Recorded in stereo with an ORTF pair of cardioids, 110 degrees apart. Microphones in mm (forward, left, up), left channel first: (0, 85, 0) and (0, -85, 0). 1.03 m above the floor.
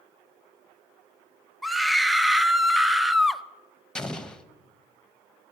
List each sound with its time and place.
1.6 s a scream: straight ahead, 0.7 m
4.0 s an explosion: 5° left, 0.7 m